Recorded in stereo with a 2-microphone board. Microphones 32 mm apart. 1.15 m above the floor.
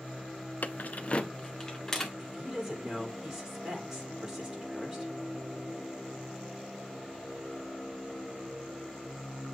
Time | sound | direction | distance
0.6 | keys jangling | 55° left (ahead or behind) | 0.5 m
2.2 | a woman speaking | 10° right (ahead or behind) | 3.5 m